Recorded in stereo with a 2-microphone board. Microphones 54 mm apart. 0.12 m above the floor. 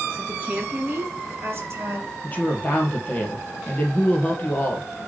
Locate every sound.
0.1 s a woman speaking: 20° right (ahead or behind), 2 m; by 2.1 s 50° right (ahead or behind), 3.5 m
2.2 s a woman speaking: 30° left (ahead or behind), 3 m